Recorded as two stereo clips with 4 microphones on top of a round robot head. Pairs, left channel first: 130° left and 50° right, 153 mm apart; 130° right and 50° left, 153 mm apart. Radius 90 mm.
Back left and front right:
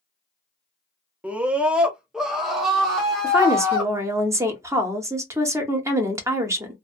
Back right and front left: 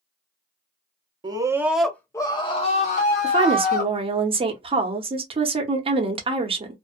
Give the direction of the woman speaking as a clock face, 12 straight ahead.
12 o'clock.